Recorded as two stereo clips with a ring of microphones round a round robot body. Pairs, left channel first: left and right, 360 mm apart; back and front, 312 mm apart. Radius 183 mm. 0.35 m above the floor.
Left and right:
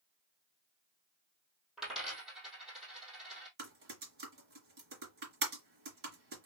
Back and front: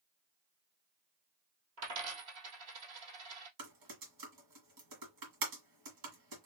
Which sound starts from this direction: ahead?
A dropped coin, at 1.8 s.